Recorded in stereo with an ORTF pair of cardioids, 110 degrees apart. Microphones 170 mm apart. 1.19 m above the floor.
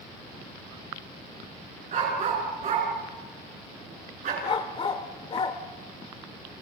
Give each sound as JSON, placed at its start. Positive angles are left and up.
{"t": 1.9, "sound": "a dog barking", "azimuth_deg": -45, "distance_m": 6.5}
{"t": 4.4, "sound": "a dog barking", "azimuth_deg": 35, "distance_m": 1.9}